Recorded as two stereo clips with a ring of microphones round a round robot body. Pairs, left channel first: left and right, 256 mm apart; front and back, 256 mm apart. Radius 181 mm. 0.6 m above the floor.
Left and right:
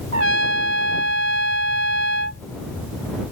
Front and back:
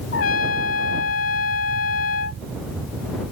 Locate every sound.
0.1 s a trumpet: 55° right